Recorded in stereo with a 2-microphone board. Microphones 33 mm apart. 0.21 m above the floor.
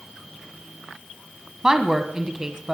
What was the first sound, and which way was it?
A woman speaking, 15° right (ahead or behind).